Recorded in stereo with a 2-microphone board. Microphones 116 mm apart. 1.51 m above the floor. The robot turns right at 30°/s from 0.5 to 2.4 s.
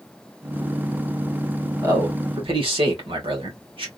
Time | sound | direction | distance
1.8 | a man speaking | 30° right (ahead or behind) | 1.9 m